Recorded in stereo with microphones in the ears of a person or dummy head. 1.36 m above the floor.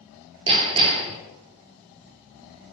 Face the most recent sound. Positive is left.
turn(degrees=-30)  # may be behind; listen again after turning